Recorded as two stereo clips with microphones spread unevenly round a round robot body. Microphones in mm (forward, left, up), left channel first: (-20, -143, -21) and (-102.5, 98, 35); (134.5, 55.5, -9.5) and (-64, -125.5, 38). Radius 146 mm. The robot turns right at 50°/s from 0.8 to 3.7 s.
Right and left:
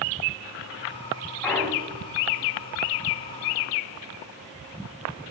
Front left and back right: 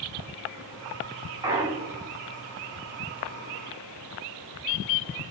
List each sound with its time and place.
1.4 s a clunk: 50° right, 1.1 m; by 2.1 s 15° right, 1.1 m